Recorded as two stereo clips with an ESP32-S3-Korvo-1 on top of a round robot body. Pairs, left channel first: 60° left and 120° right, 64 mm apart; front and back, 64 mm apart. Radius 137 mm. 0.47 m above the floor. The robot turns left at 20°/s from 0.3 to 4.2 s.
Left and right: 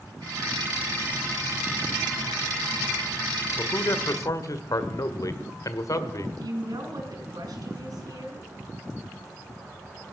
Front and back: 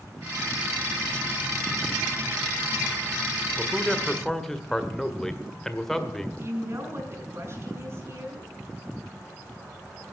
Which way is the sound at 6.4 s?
135° right.